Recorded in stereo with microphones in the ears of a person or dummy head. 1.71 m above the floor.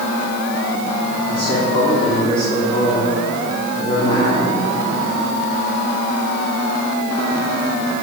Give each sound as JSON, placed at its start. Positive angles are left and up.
{"t": 1.3, "sound": "a man speaking", "side_deg": 30, "distance_m": 3.5}